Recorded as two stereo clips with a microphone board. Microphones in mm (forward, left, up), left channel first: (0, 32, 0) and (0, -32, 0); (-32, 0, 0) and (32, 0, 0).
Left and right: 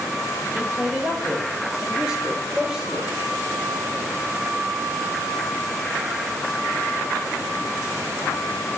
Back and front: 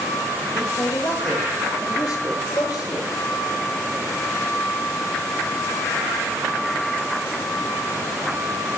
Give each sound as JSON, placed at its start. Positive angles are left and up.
{"t": 0.5, "sound": "a man speaking", "azimuth_deg": -160, "distance_m": 5.0}